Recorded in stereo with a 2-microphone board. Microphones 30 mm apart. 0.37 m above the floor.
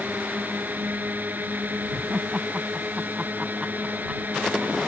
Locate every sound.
0.0 s a drone: 75° right (ahead or behind)
1.9 s laughter: 30° right (ahead or behind)